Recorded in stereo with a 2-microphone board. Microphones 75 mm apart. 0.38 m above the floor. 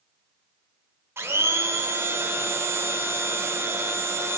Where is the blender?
35° right (ahead or behind), 0.5 m.